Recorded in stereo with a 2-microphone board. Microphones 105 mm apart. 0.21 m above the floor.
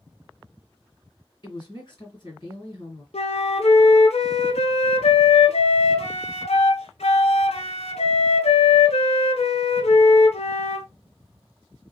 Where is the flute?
85° left, 0.6 m.